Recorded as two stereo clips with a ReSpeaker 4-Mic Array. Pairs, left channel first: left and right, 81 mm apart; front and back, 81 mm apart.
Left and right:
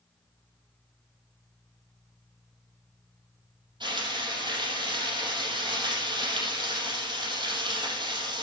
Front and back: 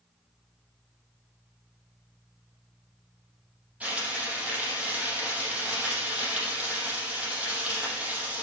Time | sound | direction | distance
3.8 | frying | 110° right | 5 m